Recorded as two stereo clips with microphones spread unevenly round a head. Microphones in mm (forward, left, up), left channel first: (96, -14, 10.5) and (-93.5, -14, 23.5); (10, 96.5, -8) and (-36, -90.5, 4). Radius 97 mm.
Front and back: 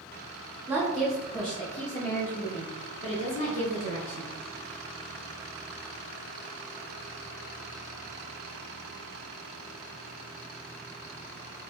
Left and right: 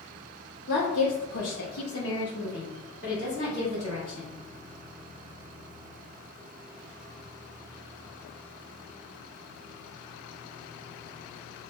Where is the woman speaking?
105° left, 1.0 m; by 4.3 s 10° left, 2.5 m.